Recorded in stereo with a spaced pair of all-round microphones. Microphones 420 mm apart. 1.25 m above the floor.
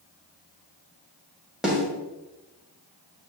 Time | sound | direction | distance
1.6 | a snare drum | centre (ahead or behind) | 2 m